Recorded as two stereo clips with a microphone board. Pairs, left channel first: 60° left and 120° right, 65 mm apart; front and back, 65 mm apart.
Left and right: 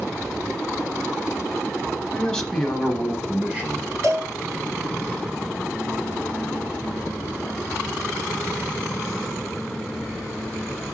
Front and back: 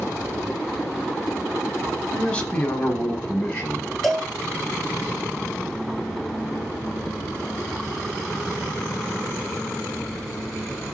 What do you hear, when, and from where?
2.1 s a man speaking: 30° left, 1.0 m; by 3.9 s 60° right, 1.4 m
4.0 s a cowbell: 85° right, 1.4 m